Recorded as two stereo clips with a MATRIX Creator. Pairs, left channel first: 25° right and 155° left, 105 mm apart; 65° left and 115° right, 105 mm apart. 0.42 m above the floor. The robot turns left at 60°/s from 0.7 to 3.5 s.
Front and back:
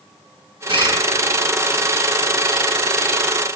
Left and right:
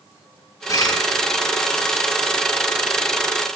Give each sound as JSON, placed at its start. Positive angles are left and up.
{"t": 0.7, "sound": "a bird", "azimuth_deg": 125, "distance_m": 5.5}